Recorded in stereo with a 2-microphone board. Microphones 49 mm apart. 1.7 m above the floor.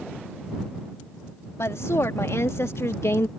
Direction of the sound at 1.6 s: 80° left.